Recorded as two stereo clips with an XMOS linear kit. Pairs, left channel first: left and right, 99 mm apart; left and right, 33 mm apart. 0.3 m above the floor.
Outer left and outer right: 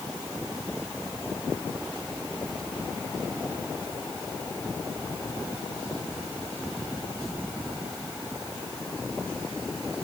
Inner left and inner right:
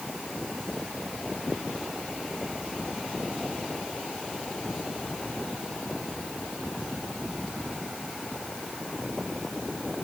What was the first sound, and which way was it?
Only background noise.